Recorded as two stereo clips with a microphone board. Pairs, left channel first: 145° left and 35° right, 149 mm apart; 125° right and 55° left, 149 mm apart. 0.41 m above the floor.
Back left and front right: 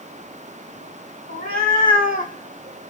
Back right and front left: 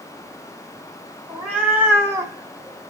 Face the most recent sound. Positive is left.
turn(degrees=110)